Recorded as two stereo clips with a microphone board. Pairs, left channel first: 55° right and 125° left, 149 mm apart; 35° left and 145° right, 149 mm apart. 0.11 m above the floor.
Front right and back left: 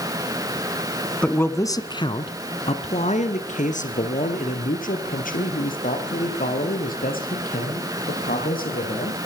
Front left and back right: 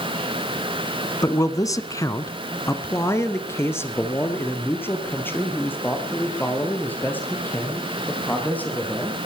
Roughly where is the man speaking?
Ahead.